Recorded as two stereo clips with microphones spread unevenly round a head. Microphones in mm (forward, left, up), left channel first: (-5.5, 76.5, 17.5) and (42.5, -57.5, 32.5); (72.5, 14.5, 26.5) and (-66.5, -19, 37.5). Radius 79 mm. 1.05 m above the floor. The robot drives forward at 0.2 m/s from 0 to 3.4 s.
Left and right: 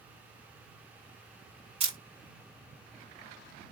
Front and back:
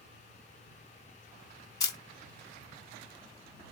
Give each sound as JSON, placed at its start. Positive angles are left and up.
{"t": 1.8, "sound": "a camera shutter", "azimuth_deg": -35, "distance_m": 0.9}